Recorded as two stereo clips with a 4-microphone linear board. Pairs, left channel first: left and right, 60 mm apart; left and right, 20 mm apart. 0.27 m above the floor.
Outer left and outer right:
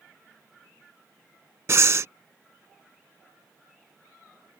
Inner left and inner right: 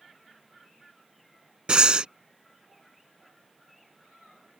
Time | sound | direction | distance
1.7 | breathing | 50° right (ahead or behind) | ?